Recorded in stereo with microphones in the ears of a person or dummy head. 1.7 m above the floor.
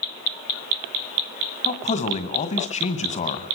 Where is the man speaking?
30° left (ahead or behind), 1.9 m.